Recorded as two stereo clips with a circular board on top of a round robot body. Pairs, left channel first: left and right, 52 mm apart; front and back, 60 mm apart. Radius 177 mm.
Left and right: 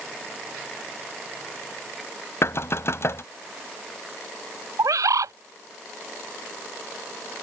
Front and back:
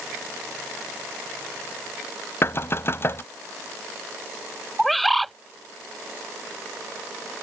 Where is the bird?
90° right.